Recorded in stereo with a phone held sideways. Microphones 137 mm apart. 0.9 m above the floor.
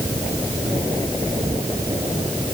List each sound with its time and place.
Only background noise.